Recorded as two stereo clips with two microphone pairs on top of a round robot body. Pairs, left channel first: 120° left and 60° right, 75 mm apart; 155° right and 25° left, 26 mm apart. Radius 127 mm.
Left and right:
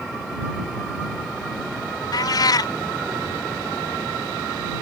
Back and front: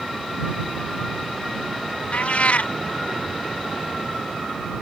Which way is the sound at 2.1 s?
160° left.